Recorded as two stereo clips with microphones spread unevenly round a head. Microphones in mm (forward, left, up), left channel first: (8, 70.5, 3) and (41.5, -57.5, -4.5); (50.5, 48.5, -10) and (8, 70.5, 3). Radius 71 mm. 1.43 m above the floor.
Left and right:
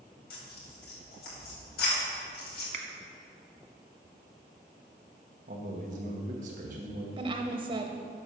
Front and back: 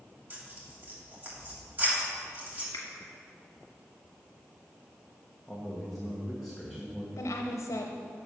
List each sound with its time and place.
0.3 s tearing paper: 105° left, 3 m
2.7 s a finger snap: 60° right, 1.4 m
5.5 s a man speaking: 115° right, 1.2 m
7.2 s a woman speaking: 25° right, 0.9 m